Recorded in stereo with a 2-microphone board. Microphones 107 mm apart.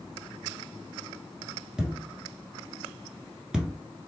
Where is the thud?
10° right (ahead or behind), 1.0 m.